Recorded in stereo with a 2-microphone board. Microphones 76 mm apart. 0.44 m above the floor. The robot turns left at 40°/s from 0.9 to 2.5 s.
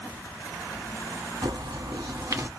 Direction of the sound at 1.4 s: 100° right.